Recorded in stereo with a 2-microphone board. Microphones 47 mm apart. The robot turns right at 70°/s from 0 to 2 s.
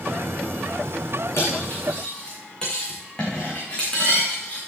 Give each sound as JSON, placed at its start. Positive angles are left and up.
{"t": 1.4, "sound": "cutlery clinking", "side_deg": 60, "distance_m": 5.5}